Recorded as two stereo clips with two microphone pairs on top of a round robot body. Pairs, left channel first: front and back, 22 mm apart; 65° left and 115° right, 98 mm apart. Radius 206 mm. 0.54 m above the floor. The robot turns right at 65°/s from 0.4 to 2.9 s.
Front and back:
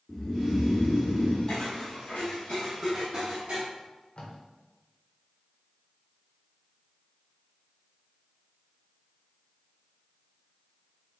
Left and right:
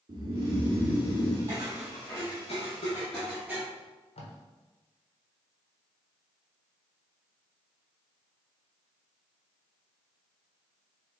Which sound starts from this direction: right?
Snoring, at 0.1 s.